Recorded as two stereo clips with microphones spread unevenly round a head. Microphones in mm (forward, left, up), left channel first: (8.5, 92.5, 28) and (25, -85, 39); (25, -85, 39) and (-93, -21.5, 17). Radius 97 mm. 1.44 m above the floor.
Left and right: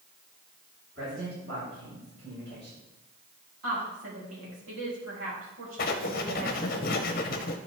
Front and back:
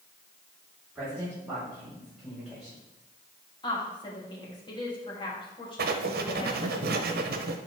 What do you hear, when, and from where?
0.9 s a man speaking: 135° right, 4.5 m; by 2.8 s 130° right, 7 m
3.6 s a woman speaking: 85° right, 3.5 m
5.8 s writing: 140° left, 0.8 m